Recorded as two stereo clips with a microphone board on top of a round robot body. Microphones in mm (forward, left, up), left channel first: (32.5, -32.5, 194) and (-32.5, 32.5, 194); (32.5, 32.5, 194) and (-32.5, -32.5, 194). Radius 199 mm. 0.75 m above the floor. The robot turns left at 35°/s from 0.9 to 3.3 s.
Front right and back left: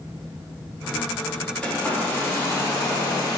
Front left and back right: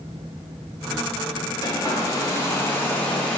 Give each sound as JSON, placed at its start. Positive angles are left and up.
{"t": 1.6, "sound": "a hair dryer", "azimuth_deg": 30, "distance_m": 1.1}